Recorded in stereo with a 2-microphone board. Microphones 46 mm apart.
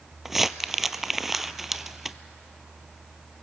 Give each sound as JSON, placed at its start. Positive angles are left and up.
{"t": 0.2, "sound": "crumpling", "side_deg": -5, "distance_m": 0.6}